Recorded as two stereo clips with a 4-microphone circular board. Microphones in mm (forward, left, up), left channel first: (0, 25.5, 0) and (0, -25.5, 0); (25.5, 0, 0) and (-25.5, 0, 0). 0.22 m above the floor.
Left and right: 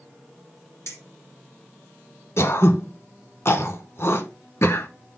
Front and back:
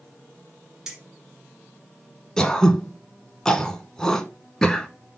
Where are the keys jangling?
100° left, 2 m.